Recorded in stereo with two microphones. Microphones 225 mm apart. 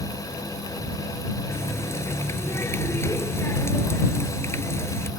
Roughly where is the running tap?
Centre.